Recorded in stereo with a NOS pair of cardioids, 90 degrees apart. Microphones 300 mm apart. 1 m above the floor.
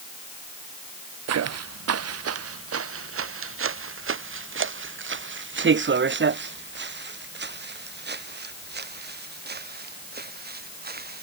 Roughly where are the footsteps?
Ahead right.